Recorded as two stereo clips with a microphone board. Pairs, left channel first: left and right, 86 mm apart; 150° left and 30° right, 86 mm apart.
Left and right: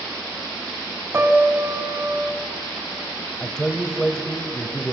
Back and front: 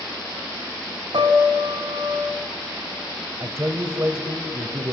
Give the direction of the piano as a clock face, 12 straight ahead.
1 o'clock.